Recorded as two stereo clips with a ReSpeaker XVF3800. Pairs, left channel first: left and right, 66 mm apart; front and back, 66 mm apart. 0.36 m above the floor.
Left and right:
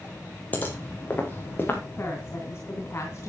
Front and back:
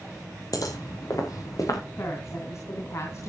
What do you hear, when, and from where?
0.5 s footsteps: 25° left, 5 m; by 1.8 s 30° left, 4.5 m
2.0 s a woman speaking: 40° left, 3 m